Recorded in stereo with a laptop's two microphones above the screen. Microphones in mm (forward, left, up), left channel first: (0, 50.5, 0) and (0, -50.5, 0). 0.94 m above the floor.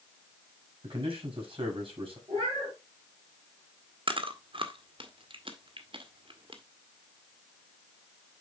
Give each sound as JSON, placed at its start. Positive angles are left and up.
{"t": 0.8, "sound": "a man speaking", "side_deg": -55, "distance_m": 5.0}
{"t": 2.3, "sound": "a cat meowing", "side_deg": -70, "distance_m": 4.5}
{"t": 4.1, "sound": "chewing", "side_deg": -60, "distance_m": 1.2}